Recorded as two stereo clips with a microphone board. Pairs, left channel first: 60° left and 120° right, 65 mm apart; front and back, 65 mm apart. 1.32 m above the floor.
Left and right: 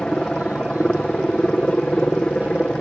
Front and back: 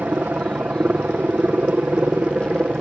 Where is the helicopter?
130° left; by 2.8 s 125° left.